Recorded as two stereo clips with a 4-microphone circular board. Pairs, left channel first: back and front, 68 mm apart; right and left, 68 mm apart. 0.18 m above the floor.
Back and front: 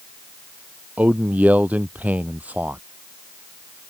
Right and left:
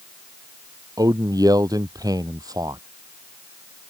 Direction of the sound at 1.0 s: 65° left.